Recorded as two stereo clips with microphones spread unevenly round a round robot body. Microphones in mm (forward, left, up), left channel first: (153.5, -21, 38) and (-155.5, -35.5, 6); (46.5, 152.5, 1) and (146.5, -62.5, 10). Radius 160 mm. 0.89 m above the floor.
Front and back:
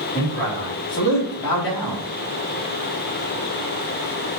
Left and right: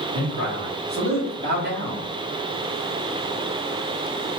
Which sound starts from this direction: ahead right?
A man speaking, at 0.1 s.